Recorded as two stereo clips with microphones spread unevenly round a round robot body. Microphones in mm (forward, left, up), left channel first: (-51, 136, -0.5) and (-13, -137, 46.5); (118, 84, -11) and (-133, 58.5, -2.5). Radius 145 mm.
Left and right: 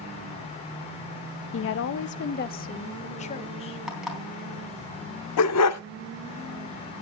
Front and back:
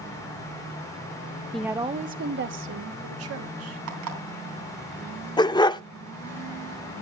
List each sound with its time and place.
1.5 s a woman speaking: 90° left, 0.6 m; by 3.8 s 165° left, 1.7 m
3.9 s an alarm clock: 170° right, 3.5 m
5.4 s a dog barking: 75° left, 0.5 m